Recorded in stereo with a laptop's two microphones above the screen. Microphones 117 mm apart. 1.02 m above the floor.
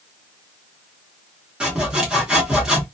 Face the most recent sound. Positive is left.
turn(degrees=-10)  # may be behind; listen again after turning